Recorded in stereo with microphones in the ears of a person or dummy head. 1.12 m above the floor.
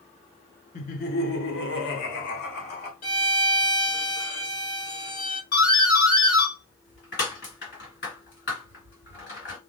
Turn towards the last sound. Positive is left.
turn(degrees=50)  # may be behind; listen again after turning